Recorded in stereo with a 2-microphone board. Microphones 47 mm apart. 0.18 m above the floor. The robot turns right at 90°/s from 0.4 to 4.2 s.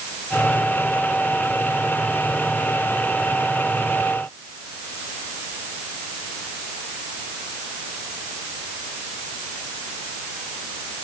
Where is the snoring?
No snoring in this recording.